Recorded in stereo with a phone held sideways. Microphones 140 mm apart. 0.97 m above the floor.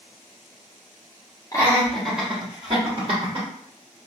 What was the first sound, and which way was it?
Laughter, 25° left (ahead or behind).